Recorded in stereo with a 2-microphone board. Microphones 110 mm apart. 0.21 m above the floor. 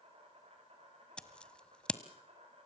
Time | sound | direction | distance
0.0 | an insect | 65° right (ahead or behind) | 8.5 m
1.2 | scissors | 10° left (ahead or behind) | 1.2 m